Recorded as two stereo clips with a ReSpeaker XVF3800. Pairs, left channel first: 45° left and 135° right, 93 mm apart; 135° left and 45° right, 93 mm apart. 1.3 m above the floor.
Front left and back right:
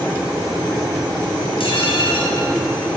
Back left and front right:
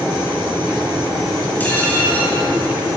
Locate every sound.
1.6 s dishes clattering: 65° left, 5.5 m